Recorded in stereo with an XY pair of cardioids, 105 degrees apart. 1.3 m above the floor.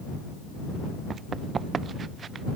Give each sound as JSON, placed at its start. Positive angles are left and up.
{"t": 1.1, "sound": "running footsteps", "azimuth_deg": -45}